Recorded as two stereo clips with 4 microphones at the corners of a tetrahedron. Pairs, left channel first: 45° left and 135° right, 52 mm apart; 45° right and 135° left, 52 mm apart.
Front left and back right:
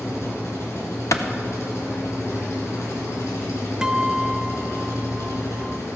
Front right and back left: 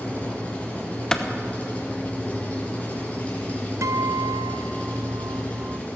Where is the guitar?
150° left, 0.5 m.